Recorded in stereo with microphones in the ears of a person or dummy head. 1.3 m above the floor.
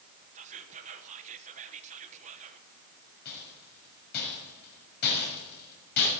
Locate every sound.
0.3 s whispering: 40° right (ahead or behind), 1.2 m
3.2 s a rattle: 55° left (ahead or behind), 6.5 m